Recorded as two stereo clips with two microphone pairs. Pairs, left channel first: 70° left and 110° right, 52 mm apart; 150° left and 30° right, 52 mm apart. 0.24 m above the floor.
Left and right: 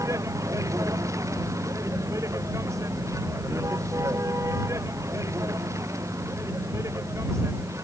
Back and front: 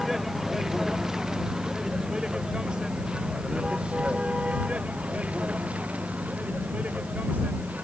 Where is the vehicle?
115° right; by 7.9 s 90° right.